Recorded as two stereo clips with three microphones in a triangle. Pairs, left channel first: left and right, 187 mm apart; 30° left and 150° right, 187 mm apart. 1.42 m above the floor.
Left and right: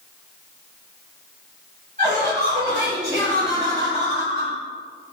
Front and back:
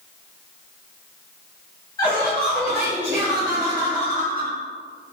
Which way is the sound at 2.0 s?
45° right.